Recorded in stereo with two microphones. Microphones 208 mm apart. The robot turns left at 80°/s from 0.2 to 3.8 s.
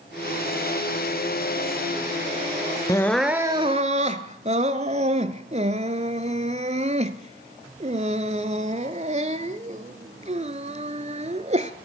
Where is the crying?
15° left (ahead or behind), 0.6 m; by 11.7 s 35° right (ahead or behind), 0.6 m.